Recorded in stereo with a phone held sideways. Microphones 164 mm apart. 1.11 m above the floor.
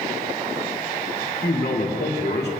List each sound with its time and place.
1.4 s a man speaking: 85° left, 2.5 m